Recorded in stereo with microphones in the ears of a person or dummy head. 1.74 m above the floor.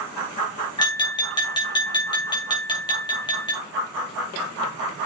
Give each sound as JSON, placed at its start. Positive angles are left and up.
{"t": 0.8, "sound": "tapping", "side_deg": 20, "distance_m": 2.0}